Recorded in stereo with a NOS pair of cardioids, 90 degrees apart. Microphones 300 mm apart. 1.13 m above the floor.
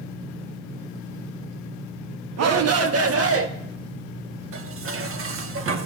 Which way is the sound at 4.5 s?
50° right.